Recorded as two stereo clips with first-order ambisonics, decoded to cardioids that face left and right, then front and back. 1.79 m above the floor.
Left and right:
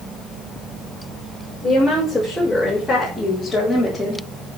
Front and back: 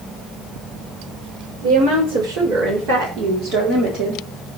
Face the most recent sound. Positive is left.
turn(degrees=175)